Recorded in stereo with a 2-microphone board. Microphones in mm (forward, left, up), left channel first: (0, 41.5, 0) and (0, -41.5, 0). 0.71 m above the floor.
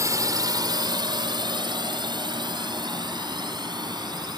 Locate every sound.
0.0 s a drone: 45° right (ahead or behind); by 4.4 s 60° right (ahead or behind)